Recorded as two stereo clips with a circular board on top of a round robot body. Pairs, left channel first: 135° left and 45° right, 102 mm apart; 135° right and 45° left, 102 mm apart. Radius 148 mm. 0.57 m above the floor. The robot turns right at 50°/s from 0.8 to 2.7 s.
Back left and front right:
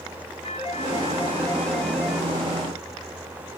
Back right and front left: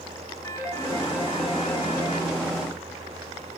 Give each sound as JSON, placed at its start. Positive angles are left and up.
{"t": 0.4, "sound": "a phone ringing", "azimuth_deg": 165, "distance_m": 4.0}